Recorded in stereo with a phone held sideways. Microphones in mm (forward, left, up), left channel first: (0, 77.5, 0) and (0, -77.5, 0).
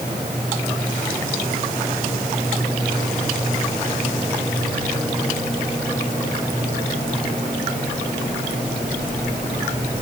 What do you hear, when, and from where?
Only background noise.